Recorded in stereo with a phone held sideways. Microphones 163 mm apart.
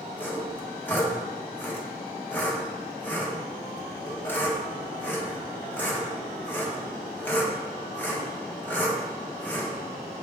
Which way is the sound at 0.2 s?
10° left (ahead or behind).